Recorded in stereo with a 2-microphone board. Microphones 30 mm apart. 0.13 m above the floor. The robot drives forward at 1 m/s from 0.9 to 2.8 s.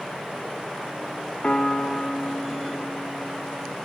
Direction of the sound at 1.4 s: 40° left (ahead or behind).